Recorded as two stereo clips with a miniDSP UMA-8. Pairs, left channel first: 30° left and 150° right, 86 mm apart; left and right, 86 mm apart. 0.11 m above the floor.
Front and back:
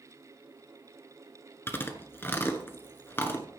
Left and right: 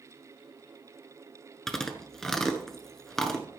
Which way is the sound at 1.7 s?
10° left.